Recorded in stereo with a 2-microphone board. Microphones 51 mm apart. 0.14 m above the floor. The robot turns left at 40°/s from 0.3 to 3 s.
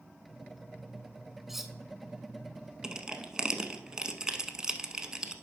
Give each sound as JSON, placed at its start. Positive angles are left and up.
{"t": 1.5, "sound": "cutlery clinking", "side_deg": -5, "distance_m": 0.6}
{"t": 2.8, "sound": "crushing", "side_deg": -15, "distance_m": 0.7}